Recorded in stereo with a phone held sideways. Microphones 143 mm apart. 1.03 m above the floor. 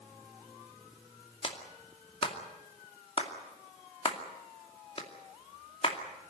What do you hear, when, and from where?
1.4 s a clap: 40° left (ahead or behind), 2.5 m